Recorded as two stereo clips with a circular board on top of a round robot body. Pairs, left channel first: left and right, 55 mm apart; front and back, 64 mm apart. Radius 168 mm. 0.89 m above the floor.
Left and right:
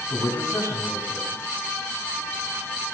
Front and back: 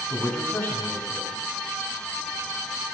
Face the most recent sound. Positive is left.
turn(degrees=60)